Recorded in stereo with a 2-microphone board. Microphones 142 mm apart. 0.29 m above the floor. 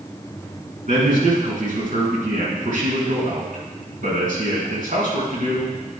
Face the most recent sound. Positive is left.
turn(degrees=-65)  # may be behind; listen again after turning